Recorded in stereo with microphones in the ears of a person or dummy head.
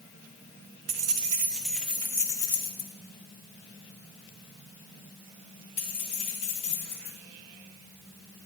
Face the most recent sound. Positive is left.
turn(degrees=35)  # may be behind; listen again after turning